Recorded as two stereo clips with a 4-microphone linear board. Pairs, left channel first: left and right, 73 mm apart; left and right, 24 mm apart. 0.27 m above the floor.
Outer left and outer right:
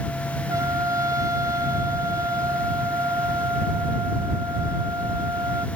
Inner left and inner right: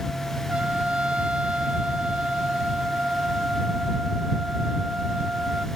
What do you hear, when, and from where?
0.5 s a trumpet: 50° right (ahead or behind)